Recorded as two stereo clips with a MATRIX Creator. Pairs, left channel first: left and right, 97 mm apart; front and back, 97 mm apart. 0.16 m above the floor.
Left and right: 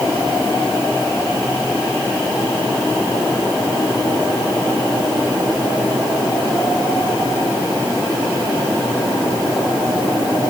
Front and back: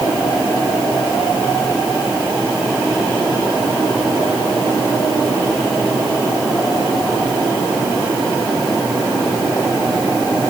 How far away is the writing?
No writing in this recording.